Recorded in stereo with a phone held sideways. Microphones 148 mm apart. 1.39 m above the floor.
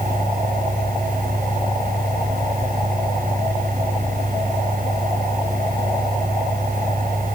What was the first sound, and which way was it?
A fan, 70° right (ahead or behind).